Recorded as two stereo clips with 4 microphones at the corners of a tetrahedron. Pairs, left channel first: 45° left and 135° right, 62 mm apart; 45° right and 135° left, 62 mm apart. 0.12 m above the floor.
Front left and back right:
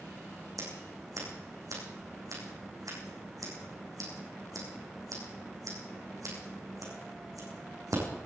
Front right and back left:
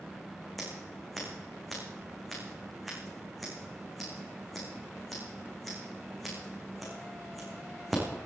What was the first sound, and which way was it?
Scissors, 135° right.